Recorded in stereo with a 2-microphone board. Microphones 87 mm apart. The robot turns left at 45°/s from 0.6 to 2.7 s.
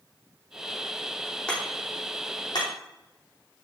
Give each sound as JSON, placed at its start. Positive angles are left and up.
{"t": 1.5, "sound": "hammering", "side_deg": 10, "distance_m": 4.0}